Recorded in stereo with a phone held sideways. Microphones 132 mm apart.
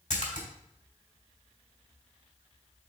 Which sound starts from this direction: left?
A splash, at 0.1 s.